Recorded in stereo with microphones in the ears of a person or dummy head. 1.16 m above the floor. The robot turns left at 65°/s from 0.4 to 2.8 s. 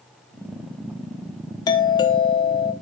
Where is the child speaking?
No child speaking in this recording.